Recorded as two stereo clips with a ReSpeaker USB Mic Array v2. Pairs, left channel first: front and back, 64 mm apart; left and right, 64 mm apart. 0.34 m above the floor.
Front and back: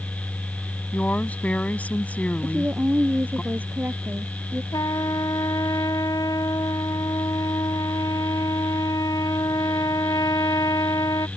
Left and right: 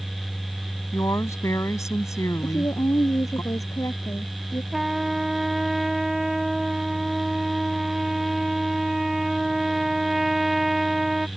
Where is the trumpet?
5° right.